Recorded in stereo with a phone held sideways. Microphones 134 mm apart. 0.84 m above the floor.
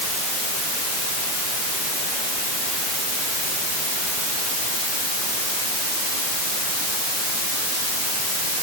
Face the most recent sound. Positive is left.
No sound to turn to.